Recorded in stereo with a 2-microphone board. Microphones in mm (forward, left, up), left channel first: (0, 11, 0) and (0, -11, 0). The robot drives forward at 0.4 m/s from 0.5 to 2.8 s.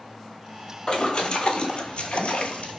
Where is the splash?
45° left (ahead or behind), 1.0 m; by 2.8 s 75° left (ahead or behind), 0.7 m.